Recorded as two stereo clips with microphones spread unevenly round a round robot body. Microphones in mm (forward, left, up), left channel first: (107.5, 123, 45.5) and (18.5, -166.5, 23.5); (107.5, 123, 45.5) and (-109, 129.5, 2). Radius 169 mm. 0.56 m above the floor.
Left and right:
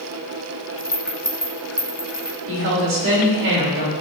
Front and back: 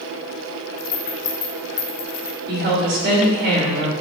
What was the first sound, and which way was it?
A rattle, 20° right.